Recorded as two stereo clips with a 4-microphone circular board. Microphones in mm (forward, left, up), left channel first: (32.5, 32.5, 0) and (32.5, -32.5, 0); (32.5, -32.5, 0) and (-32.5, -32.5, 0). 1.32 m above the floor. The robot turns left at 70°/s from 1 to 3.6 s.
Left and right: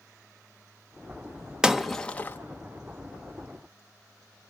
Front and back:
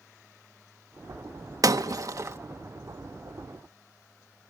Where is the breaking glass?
165° right, 1.0 m; by 2.4 s 140° left, 1.0 m.